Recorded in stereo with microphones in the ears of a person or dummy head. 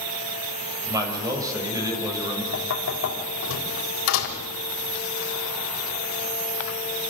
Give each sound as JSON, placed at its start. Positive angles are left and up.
{"t": 0.8, "sound": "a man speaking", "side_deg": -25, "distance_m": 5.5}
{"t": 2.5, "sound": "knocking", "side_deg": 80, "distance_m": 4.0}